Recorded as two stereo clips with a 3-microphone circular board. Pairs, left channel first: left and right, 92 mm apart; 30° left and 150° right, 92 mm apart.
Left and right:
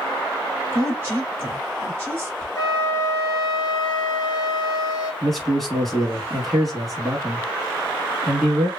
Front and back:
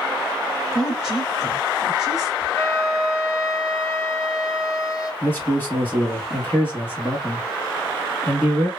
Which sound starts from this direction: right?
A woman speaking, at 0.7 s.